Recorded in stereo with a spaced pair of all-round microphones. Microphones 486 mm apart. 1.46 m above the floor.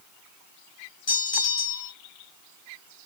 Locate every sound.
1.1 s a bell: 65° left (ahead or behind), 1.0 m